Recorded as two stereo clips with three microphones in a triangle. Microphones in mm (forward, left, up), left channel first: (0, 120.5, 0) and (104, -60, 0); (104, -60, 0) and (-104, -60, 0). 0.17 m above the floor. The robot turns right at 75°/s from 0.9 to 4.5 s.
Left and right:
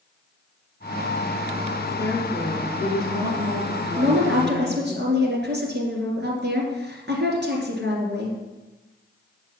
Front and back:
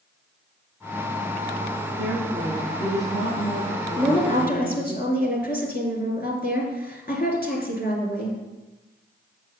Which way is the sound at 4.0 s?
80° right.